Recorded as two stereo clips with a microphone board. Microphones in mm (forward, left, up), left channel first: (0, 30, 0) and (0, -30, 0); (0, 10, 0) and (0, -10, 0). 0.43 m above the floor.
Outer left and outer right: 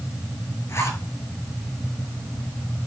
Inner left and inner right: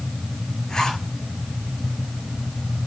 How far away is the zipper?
About 7 m.